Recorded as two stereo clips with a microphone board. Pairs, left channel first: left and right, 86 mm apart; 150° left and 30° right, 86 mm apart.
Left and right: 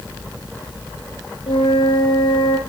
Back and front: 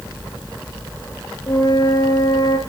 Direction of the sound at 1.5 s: 105° left.